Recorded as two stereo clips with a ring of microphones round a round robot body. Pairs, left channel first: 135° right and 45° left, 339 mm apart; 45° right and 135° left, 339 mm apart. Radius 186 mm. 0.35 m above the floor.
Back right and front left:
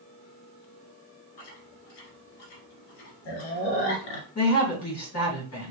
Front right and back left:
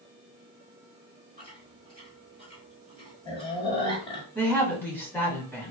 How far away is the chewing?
About 1.3 m.